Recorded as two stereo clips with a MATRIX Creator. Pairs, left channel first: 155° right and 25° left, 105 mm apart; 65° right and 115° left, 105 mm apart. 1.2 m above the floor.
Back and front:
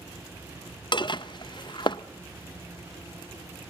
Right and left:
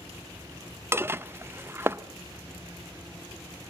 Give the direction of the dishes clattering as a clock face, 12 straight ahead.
6 o'clock.